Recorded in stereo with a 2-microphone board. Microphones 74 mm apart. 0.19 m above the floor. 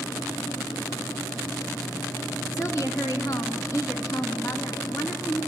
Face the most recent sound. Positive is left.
turn(degrees=50)  # may be behind; listen again after turning